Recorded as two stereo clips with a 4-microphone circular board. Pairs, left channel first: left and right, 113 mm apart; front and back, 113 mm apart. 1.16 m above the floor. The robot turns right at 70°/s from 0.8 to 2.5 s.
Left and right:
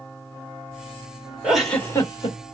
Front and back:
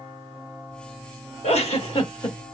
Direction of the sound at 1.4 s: 10° right.